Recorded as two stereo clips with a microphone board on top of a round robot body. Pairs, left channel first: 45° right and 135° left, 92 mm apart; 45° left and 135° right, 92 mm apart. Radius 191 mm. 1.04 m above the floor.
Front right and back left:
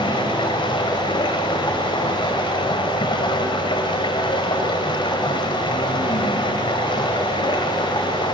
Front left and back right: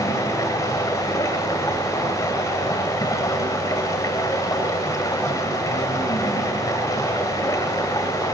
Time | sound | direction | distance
0.0 | running water | 10° right | 2.5 m